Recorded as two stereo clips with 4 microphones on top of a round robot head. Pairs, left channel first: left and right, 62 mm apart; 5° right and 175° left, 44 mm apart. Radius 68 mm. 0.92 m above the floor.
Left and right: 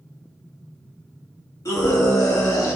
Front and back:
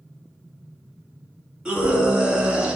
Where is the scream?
105° left, 3 m.